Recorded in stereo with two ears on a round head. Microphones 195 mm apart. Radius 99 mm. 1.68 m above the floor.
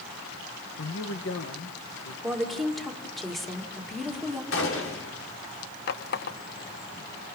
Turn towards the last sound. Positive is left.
turn(degrees=50)  # may be behind; listen again after turning